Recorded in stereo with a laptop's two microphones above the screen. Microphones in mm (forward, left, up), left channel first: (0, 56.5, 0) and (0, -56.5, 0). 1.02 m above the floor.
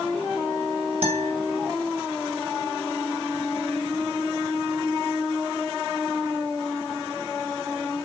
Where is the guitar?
65° right (ahead or behind), 3 m.